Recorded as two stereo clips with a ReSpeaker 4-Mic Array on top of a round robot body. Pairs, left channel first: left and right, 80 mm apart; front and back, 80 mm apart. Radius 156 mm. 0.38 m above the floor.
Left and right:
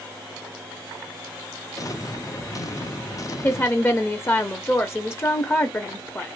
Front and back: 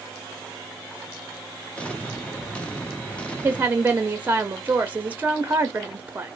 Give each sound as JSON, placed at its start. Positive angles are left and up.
{"t": 1.8, "sound": "an explosion", "azimuth_deg": 70, "distance_m": 1.2}
{"t": 3.4, "sound": "a woman speaking", "azimuth_deg": 130, "distance_m": 1.0}